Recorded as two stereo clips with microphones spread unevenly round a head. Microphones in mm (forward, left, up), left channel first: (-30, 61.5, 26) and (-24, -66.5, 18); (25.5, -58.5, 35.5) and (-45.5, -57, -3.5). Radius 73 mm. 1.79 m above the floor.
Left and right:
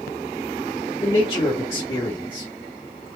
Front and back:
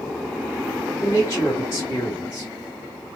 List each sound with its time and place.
1.0 s a man speaking: 30° left, 1.1 m